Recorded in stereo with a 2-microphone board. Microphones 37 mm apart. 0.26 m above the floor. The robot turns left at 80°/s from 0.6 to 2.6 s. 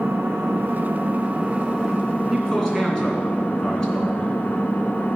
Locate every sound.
0.0 s an engine running: 85° right, 0.9 m; by 5.2 s 115° left, 0.9 m
2.3 s a man speaking: 5° right (ahead or behind), 2.5 m; by 4.4 s 15° left (ahead or behind), 2.5 m